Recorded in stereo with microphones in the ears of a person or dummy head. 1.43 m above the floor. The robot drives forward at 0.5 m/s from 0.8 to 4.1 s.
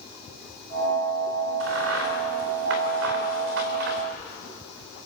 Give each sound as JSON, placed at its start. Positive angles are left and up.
{"t": 1.6, "sound": "a crack", "side_deg": -80, "distance_m": 3.0}